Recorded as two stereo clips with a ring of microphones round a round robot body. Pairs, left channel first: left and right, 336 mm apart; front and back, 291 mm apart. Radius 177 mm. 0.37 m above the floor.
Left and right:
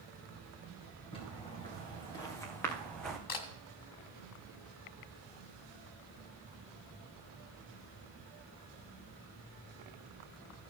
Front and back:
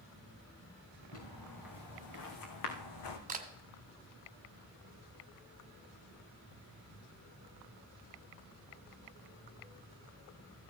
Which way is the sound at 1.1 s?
15° left.